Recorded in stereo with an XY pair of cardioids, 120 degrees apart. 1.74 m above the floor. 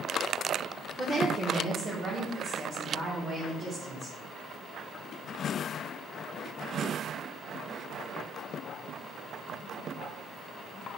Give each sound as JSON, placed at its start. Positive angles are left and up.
{"t": 1.0, "sound": "a woman speaking", "azimuth_deg": -25, "distance_m": 1.4}